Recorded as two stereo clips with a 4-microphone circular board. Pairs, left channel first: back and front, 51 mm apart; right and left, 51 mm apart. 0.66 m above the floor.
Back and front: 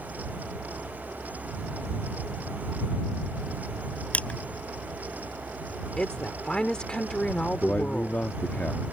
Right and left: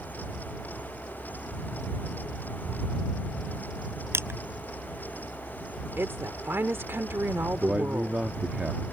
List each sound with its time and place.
4.1 s crushing: 120° left
6.0 s a woman speaking: 110° left
7.6 s a man speaking: 135° left